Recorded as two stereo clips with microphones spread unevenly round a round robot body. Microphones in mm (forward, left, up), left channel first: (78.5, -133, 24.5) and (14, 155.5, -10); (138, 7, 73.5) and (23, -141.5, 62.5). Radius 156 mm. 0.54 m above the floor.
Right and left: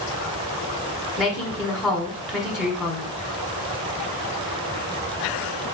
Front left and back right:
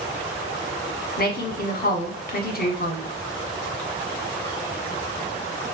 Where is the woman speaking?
20° left, 1.3 m.